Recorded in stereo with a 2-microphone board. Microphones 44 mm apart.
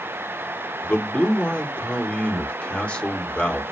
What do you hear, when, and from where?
0.8 s a man speaking: 25° left (ahead or behind), 1.9 m